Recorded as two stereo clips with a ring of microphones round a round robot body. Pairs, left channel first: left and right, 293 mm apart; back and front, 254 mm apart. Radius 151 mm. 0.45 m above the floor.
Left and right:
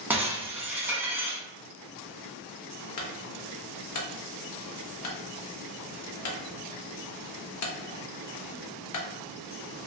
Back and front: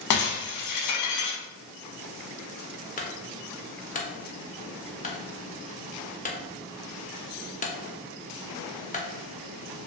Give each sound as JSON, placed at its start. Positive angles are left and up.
{"t": 0.1, "sound": "breaking glass", "azimuth_deg": -175, "distance_m": 0.6}
{"t": 3.0, "sound": "a clunk", "azimuth_deg": 120, "distance_m": 0.7}